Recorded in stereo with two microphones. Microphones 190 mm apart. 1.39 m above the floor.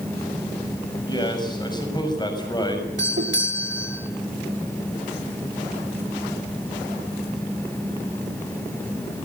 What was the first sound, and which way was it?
A man speaking, 20° left (ahead or behind).